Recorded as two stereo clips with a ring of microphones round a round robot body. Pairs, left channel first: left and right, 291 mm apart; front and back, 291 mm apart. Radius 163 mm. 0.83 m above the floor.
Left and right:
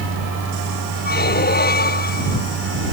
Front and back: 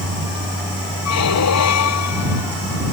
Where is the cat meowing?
I don't hear a cat meowing.